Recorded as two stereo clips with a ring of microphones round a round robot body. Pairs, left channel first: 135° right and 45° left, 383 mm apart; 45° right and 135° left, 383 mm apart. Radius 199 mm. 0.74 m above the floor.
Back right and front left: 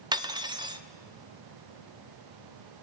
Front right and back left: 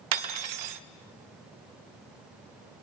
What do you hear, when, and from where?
0.1 s cutlery clinking: 125° left, 0.8 m